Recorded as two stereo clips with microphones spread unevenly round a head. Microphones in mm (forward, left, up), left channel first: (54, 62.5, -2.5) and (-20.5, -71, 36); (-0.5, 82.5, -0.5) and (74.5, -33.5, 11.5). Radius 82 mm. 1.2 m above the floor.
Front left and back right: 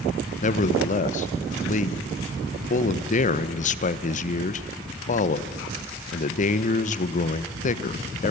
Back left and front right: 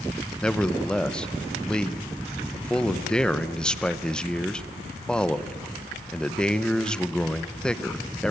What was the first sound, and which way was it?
A man speaking, 40° left.